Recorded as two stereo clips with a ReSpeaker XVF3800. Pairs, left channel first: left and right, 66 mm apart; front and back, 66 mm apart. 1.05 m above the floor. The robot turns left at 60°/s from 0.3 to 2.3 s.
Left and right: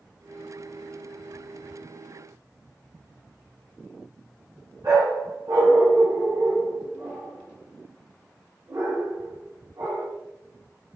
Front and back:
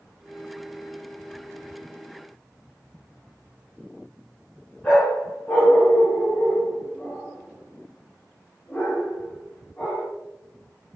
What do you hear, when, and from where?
4.8 s a dog barking: 70° right, 6.5 m